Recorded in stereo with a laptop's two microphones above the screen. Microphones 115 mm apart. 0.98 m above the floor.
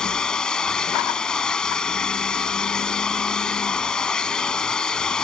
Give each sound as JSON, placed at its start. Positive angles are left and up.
{"t": 0.0, "sound": "a machine running", "side_deg": 5}